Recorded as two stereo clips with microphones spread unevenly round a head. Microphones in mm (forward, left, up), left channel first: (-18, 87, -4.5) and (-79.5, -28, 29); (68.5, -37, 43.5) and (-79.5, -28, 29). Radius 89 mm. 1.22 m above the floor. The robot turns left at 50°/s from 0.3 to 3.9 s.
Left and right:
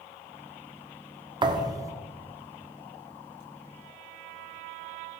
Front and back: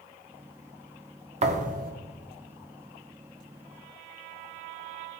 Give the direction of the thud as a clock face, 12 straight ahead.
5 o'clock.